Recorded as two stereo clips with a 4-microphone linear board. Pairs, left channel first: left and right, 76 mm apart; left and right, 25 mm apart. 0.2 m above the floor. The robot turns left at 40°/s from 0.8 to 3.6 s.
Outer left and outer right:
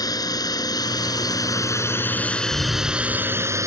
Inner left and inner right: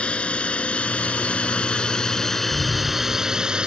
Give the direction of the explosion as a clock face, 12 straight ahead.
11 o'clock.